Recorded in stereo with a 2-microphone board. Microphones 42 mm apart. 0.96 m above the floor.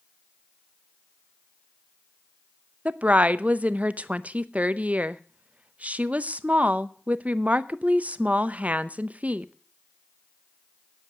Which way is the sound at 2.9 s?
30° right (ahead or behind).